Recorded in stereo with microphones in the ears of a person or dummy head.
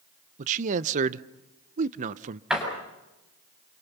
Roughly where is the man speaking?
Right.